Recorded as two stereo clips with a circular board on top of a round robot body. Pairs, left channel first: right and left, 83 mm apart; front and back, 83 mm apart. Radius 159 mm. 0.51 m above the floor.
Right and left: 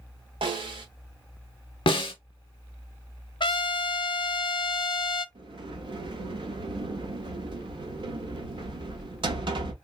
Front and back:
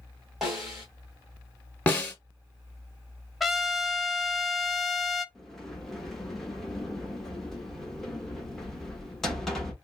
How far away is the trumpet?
About 0.7 m.